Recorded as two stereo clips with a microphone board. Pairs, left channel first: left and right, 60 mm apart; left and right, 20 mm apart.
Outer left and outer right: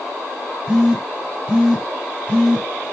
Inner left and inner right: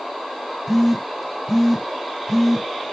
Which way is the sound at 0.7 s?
15° right (ahead or behind).